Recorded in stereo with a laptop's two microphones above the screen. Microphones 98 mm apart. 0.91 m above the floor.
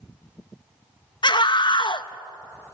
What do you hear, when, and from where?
1.2 s a scream: 50° left (ahead or behind), 0.8 m